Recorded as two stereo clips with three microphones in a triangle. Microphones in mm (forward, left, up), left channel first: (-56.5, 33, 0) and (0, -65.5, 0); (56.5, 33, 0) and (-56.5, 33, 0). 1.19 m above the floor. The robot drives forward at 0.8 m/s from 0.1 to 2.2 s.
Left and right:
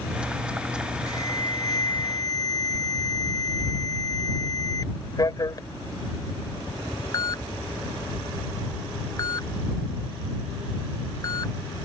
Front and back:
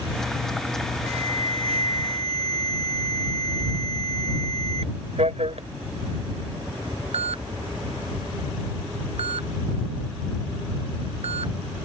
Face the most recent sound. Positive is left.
turn(degrees=175)